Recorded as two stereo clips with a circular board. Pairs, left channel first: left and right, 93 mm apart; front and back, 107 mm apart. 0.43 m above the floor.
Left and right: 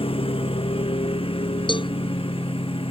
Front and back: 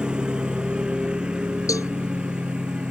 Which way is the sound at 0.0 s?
100° left.